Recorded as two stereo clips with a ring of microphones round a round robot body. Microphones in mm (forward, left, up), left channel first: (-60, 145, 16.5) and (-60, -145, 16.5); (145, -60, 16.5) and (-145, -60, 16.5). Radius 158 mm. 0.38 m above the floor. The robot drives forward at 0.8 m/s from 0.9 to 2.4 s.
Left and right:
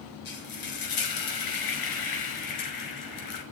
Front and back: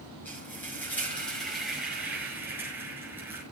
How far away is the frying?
About 6.5 m.